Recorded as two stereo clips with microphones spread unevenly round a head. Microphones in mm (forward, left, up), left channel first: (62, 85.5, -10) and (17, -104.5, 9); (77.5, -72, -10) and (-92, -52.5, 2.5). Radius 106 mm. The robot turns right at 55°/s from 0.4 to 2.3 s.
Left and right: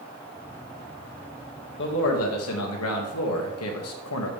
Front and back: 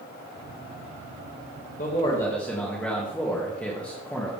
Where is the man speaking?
50° left, 2 m; by 4.3 s 80° left, 2 m.